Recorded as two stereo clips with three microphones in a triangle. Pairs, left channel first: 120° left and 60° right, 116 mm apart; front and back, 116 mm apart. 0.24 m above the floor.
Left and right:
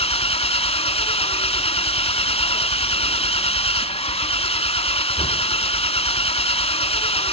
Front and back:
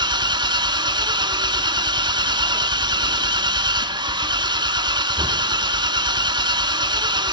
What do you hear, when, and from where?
0.0 s an engine running: 140° left, 0.8 m